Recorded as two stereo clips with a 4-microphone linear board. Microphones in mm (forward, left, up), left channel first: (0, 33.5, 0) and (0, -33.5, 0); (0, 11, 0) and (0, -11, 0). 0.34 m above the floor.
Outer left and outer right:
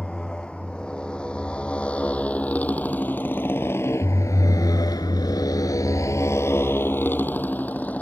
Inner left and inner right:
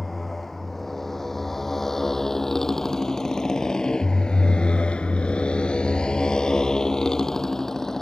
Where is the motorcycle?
10° left (ahead or behind); by 8.0 s 25° left (ahead or behind).